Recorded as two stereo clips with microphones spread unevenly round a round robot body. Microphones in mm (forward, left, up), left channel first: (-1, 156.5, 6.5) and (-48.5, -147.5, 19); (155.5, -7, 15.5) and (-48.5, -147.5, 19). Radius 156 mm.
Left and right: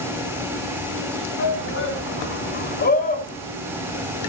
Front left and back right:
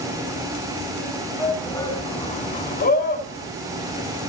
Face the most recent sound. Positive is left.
turn(degrees=15)